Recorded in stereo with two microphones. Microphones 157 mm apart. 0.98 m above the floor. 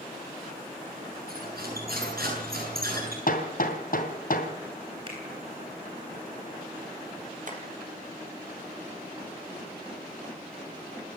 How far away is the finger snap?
About 9.5 m.